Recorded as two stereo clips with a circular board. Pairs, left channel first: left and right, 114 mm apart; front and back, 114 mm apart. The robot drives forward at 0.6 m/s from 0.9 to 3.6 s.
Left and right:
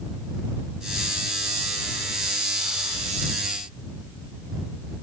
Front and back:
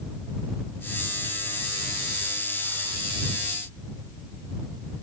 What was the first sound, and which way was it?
Only background noise.